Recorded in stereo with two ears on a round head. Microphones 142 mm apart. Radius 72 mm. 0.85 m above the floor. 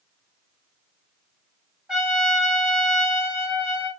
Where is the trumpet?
5° right (ahead or behind), 1.6 m.